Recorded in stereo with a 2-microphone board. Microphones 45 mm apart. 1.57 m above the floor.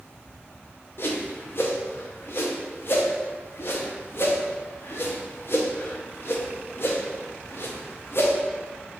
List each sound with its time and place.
1.0 s a whoosh: 55° left (ahead or behind), 0.6 m